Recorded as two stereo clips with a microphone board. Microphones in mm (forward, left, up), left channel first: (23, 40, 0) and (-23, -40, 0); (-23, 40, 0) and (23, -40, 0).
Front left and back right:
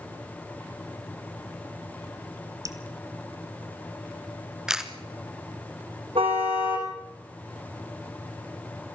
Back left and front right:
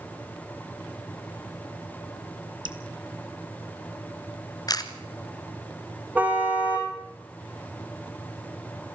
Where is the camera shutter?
155° left, 1.6 m.